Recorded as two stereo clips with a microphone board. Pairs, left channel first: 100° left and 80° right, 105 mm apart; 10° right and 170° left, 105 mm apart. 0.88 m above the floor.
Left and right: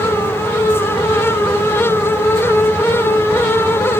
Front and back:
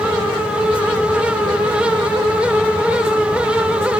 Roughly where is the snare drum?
No snare drum in this recording.